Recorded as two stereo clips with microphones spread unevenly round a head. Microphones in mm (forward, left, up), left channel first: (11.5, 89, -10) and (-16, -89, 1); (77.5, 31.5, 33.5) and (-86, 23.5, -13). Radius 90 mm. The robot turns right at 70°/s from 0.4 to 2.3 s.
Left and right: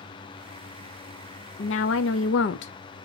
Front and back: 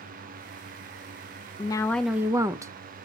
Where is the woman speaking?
55° left, 0.5 m; by 3.0 s 105° left, 0.5 m.